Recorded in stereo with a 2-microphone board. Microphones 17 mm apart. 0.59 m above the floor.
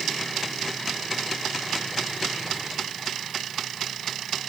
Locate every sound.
Only background noise.